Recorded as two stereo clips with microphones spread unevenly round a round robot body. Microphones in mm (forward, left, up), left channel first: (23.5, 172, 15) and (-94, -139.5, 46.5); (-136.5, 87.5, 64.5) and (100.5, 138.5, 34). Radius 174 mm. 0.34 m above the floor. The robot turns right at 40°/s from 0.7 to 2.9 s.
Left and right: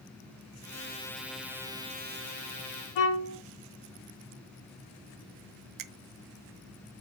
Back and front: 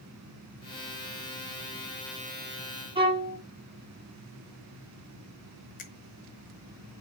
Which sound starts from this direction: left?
A violin, at 3.0 s.